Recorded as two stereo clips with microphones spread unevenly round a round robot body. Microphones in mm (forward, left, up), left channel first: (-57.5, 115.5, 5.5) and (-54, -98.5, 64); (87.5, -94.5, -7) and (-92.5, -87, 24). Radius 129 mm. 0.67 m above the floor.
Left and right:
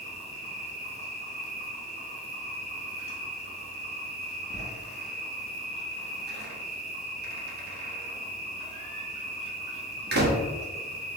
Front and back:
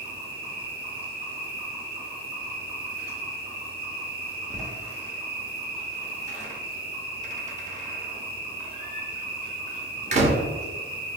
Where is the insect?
150° right, 1.7 m.